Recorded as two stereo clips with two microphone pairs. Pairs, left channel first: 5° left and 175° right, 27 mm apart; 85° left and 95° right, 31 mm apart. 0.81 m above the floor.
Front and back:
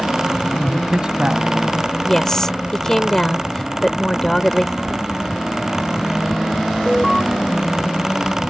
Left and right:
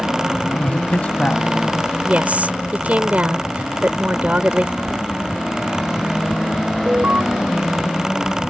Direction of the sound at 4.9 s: 165° left.